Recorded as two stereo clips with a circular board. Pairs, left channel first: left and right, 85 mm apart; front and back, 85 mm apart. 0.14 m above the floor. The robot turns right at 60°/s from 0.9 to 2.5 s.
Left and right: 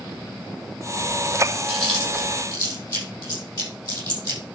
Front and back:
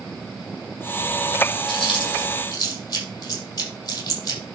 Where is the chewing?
Straight ahead, 5.5 m; by 4.4 s 45° left, 5.5 m.